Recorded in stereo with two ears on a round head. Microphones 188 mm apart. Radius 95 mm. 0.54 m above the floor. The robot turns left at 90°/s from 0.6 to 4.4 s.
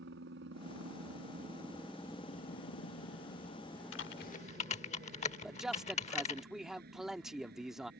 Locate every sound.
0.0 s a helicopter: 60° right (ahead or behind); by 8.0 s 50° right (ahead or behind)
3.9 s typing on a keyboard: 70° left (ahead or behind); by 6.4 s 35° left (ahead or behind)
5.4 s a man speaking: centre (ahead or behind)